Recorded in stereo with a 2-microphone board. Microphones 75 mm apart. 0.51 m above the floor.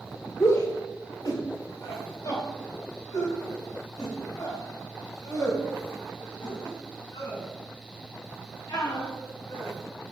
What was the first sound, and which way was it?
A shout, 40° left (ahead or behind).